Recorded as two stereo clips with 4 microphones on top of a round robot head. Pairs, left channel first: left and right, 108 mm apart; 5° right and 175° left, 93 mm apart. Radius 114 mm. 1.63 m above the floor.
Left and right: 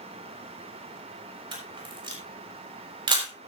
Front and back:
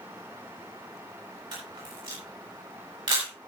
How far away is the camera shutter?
About 4 m.